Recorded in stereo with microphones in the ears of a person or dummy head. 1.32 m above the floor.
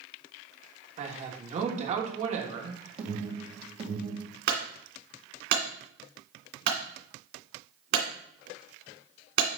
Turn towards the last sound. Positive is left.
turn(degrees=-55)  # may be behind; listen again after turning